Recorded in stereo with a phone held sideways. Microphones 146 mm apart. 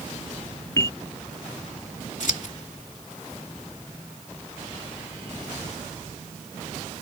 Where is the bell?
25° left (ahead or behind).